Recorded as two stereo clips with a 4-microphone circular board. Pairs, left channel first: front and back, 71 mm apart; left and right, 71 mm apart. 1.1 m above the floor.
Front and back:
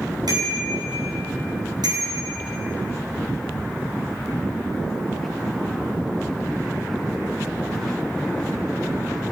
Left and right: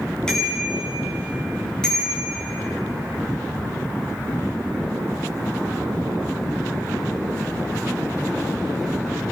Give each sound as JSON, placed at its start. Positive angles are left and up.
{"t": 0.3, "sound": "a bicycle bell", "azimuth_deg": 170, "distance_m": 8.0}